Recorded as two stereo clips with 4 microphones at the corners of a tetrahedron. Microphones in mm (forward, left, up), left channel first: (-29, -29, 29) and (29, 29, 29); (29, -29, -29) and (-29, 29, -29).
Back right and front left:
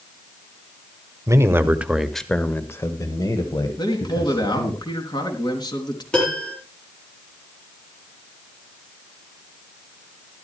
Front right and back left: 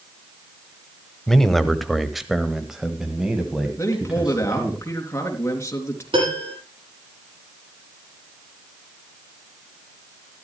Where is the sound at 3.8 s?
100° right, 3.5 m.